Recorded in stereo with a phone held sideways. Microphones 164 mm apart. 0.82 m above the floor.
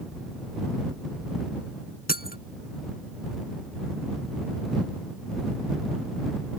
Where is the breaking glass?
70° left (ahead or behind).